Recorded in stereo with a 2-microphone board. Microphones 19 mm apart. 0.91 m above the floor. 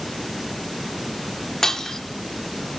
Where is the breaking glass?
25° left (ahead or behind), 1.2 m.